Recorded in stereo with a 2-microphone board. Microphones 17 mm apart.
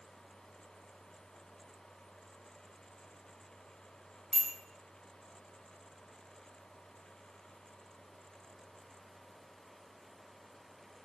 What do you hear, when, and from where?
4.3 s a bicycle bell: 10° right (ahead or behind), 3 m